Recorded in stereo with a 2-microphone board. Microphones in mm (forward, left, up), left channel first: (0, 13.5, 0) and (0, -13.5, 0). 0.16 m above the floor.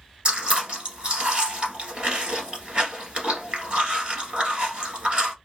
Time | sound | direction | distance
0.2 | chewing | 45° right (ahead or behind) | 1.2 m